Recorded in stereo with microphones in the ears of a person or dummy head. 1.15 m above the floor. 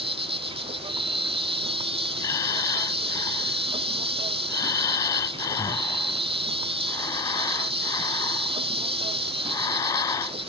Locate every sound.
0.0 s an insect: 25° right (ahead or behind)
2.2 s breathing: 20° left (ahead or behind)